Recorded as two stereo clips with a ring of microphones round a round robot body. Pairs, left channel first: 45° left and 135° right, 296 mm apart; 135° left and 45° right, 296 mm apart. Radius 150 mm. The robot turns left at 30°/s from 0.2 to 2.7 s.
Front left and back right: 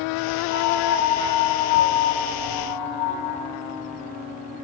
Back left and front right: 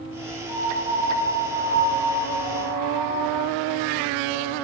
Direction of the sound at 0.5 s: 105° left.